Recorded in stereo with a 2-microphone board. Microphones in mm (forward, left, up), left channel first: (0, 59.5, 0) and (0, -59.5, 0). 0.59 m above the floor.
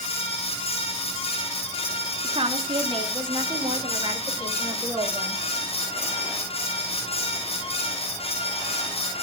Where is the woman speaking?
50° right (ahead or behind), 1.5 m; by 5.4 s 30° right (ahead or behind), 2.5 m.